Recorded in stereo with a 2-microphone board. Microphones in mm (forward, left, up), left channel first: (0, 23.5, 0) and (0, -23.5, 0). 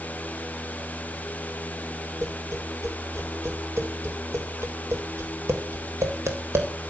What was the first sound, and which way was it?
Tapping, 75° right (ahead or behind).